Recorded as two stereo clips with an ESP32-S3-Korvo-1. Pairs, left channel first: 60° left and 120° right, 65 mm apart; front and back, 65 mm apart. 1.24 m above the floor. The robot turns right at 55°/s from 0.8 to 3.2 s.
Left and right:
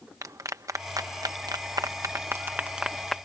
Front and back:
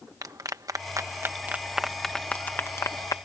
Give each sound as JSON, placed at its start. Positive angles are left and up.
{"t": 0.2, "sound": "a clap", "azimuth_deg": -155}